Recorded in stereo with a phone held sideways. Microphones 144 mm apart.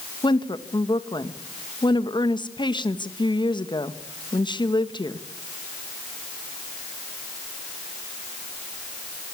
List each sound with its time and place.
0.2 s a woman speaking: 30° left (ahead or behind), 1.5 m